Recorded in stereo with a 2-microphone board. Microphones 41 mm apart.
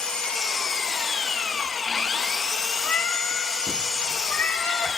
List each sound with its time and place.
0.0 s an engine running: 15° left (ahead or behind), 0.9 m
2.8 s a cat meowing: 40° left (ahead or behind), 2 m